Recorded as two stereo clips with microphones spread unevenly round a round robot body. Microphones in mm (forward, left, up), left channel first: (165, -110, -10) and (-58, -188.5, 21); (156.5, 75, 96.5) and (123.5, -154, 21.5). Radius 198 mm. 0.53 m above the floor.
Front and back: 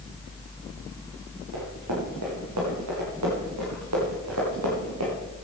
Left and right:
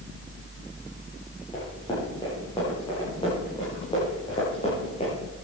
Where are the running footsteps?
160° left, 6 m; by 5.1 s 155° left, 4 m.